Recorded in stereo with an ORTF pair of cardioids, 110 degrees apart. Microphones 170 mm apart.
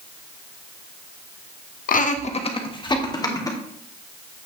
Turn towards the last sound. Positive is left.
turn(degrees=20)